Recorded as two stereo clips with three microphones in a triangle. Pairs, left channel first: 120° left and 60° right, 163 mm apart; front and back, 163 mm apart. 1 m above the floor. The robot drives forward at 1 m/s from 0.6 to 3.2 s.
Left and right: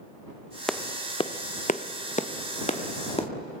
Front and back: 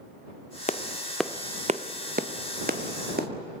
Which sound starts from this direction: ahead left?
A clap, at 0.7 s.